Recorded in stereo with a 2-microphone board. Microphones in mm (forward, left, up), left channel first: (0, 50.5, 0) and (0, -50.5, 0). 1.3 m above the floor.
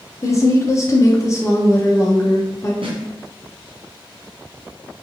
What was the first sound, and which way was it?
A woman speaking, 35° left (ahead or behind).